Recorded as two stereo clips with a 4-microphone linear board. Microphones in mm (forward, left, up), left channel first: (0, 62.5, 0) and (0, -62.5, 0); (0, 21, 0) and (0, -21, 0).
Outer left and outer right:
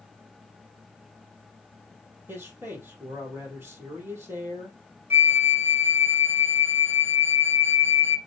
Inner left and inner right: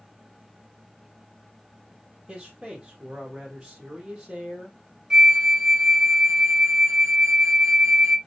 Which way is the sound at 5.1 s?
15° right (ahead or behind).